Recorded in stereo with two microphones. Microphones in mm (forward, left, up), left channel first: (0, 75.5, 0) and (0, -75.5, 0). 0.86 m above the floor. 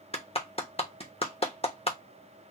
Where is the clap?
40° left (ahead or behind), 0.9 m.